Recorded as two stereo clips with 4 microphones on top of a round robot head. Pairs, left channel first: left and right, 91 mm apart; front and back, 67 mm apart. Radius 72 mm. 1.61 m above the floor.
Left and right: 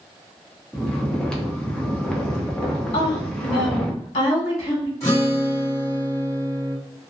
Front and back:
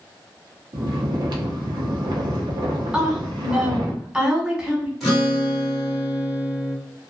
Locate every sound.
0.7 s snoring: 170° left, 0.6 m
2.9 s a woman speaking: 100° left, 1.4 m
5.0 s a guitar: 90° left, 1.3 m